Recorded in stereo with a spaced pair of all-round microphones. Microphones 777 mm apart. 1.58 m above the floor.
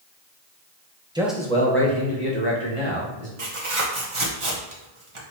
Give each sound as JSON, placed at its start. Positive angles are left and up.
{"t": 1.1, "sound": "a man speaking", "side_deg": -5, "distance_m": 1.0}
{"t": 3.4, "sound": "tearing paper", "side_deg": -40, "distance_m": 1.0}